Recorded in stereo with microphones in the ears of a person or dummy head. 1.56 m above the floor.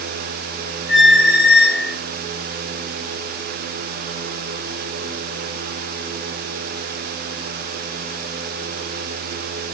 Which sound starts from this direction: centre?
A squeak, at 0.9 s.